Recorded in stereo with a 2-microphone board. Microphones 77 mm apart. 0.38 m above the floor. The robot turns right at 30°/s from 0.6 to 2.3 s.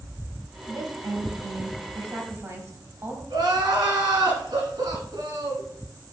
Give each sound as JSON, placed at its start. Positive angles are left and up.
{"t": 0.7, "sound": "a woman speaking", "azimuth_deg": -95, "distance_m": 1.7}
{"t": 3.3, "sound": "crying", "side_deg": -80, "distance_m": 2.0}